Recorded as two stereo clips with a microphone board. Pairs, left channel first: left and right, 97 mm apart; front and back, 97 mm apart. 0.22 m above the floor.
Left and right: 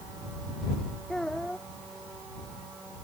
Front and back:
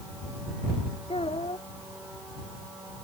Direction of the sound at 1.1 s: 5° left.